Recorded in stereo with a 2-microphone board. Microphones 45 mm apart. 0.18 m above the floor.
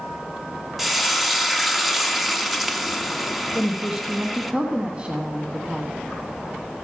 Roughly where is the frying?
Centre.